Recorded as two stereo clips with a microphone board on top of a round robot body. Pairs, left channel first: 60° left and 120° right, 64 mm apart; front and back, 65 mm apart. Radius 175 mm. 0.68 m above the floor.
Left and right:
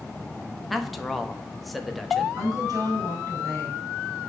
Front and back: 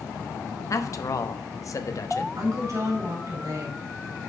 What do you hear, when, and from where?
0.7 s a man speaking: 30° right, 1.1 m
2.4 s a woman speaking: 145° right, 3.5 m